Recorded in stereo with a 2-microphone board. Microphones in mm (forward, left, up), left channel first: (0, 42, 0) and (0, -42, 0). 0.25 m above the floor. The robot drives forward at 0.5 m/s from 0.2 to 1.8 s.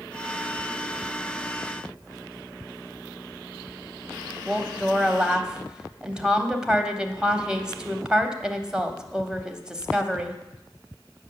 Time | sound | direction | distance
4.5 | a woman speaking | 10° right (ahead or behind) | 1.0 m